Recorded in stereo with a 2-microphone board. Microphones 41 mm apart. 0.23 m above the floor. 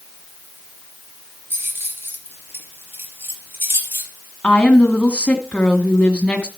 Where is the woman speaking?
25° left (ahead or behind), 1.7 m.